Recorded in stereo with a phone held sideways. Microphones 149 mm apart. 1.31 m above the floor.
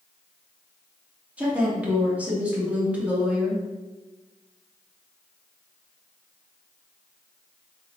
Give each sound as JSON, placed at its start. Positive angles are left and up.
{"t": 1.4, "sound": "a woman speaking", "side_deg": -10, "distance_m": 2.5}